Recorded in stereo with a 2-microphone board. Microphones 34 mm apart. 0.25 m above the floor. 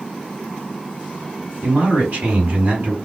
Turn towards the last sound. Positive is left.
turn(degrees=-50)  # may be behind; listen again after turning